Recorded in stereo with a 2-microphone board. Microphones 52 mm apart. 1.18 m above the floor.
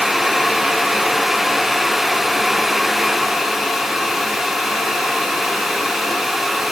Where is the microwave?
I don't hear a microwave.